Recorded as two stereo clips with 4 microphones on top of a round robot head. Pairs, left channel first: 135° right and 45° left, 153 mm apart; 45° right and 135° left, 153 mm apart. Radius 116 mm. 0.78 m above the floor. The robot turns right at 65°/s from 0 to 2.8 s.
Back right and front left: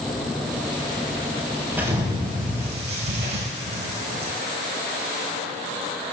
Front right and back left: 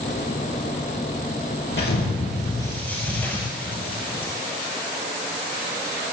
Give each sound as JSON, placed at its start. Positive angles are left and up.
{"t": 1.7, "sound": "an explosion", "azimuth_deg": -40, "distance_m": 4.0}